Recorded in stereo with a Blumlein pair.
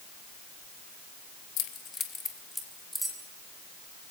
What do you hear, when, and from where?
1.6 s keys jangling: 35° left, 1.5 m; by 3.2 s 5° right, 3 m